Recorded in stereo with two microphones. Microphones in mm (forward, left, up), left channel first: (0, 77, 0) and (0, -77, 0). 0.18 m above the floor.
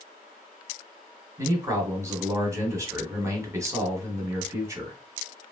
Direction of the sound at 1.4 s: 20° right (ahead or behind).